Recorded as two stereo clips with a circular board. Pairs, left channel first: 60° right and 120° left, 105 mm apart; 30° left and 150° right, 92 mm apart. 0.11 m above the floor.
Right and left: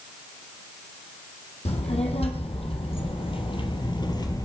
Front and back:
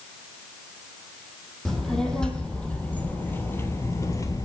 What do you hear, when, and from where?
1.6 s a child speaking: 55° right, 3.5 m; by 4.5 s 10° right, 2 m